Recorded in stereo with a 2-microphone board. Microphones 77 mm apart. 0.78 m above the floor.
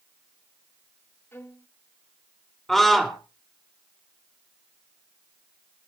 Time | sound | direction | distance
1.3 | a violin | 30° left (ahead or behind) | 1.7 m
2.7 | a scream | 5° left (ahead or behind) | 2.5 m